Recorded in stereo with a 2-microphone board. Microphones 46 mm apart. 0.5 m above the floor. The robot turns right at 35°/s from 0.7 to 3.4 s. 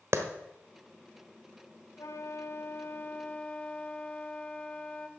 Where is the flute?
100° left, 0.9 m; by 5.1 s 155° left, 0.9 m.